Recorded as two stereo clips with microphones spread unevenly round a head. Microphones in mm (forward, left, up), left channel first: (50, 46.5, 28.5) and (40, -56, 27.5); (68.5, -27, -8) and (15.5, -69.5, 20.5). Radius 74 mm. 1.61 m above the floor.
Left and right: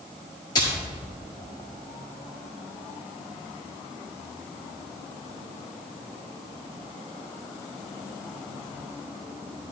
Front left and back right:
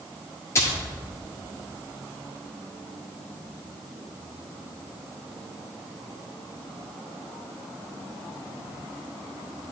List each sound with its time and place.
0.6 s a splash: 115° left, 1.2 m